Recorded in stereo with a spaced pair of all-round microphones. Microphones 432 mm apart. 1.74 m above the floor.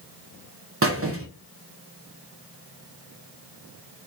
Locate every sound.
0.8 s a squeak: 30° right (ahead or behind), 0.7 m